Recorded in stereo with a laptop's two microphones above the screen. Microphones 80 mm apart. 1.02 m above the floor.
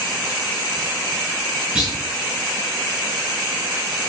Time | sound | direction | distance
1.8 | a clunk | 15° right (ahead or behind) | 6 m